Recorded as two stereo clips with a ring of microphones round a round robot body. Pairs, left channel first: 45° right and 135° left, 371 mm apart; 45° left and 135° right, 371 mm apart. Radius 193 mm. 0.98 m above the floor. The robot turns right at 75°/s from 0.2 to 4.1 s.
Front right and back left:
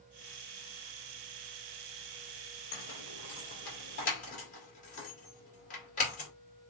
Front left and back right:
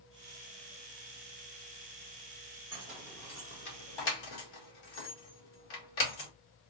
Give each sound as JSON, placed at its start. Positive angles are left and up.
{"t": 2.7, "sound": "keys jangling", "azimuth_deg": -80, "distance_m": 2.0}